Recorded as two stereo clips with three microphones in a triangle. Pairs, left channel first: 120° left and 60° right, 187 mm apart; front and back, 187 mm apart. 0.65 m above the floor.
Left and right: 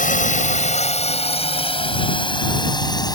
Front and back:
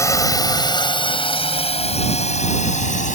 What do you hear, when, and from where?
0.0 s a drone: 75° left; by 3.2 s 50° left